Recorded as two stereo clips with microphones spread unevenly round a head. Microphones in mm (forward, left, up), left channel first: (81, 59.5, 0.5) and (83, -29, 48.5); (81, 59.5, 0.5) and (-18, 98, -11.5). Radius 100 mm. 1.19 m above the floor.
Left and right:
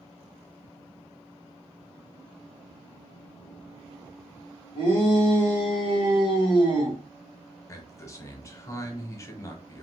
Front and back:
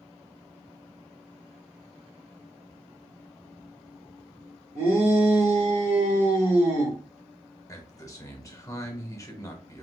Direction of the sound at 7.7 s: 40° left.